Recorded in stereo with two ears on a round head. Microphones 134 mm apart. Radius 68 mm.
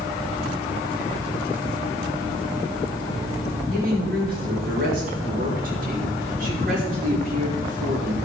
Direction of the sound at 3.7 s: 65° right (ahead or behind).